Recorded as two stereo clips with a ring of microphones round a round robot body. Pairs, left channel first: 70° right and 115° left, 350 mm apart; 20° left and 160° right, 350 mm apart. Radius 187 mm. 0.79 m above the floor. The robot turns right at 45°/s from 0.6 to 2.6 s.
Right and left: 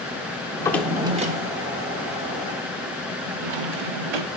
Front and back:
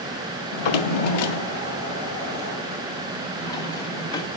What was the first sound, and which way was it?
A drawer, 10° left.